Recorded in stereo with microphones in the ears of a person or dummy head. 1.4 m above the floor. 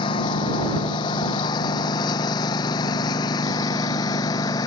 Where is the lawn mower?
30° left (ahead or behind); by 4.7 s 25° left (ahead or behind).